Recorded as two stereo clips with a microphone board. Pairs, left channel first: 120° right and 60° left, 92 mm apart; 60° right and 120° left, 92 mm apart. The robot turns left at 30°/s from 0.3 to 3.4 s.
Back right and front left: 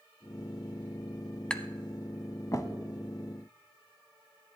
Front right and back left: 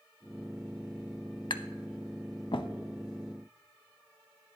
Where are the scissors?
No scissors in this recording.